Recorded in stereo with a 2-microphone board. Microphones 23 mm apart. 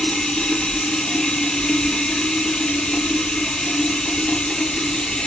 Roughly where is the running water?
Left.